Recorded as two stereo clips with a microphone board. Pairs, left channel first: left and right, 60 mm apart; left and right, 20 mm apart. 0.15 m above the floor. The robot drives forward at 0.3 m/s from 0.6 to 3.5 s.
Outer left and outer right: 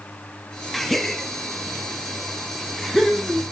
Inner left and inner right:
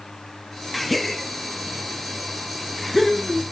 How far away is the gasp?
About 0.7 m.